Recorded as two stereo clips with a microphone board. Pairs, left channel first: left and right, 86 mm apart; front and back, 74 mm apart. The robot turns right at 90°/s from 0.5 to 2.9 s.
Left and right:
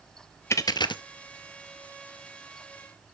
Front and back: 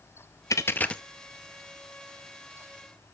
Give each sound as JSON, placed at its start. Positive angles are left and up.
{"t": 0.5, "sound": "a dropped coin", "azimuth_deg": 35, "distance_m": 0.7}